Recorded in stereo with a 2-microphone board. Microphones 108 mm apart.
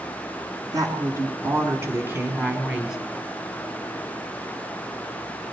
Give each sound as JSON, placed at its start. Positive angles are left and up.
{"t": 0.7, "sound": "a woman speaking", "side_deg": -35, "distance_m": 2.5}